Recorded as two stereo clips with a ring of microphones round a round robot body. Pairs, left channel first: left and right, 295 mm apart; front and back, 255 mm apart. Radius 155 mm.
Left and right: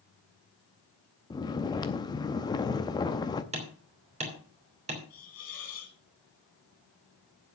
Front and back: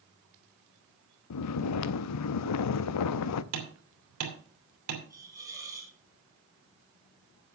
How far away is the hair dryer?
I don't hear a hair dryer.